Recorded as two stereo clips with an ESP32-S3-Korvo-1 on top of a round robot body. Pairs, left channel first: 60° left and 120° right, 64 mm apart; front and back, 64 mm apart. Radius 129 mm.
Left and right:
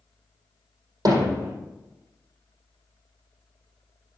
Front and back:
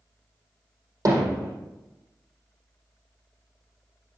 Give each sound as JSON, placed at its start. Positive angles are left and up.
{"t": 1.1, "sound": "hammering", "azimuth_deg": -140, "distance_m": 4.0}